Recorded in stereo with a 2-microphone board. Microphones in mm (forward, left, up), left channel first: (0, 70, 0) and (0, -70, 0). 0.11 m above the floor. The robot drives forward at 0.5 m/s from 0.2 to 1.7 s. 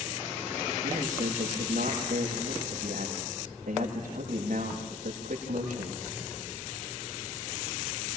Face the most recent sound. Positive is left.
turn(degrees=-80)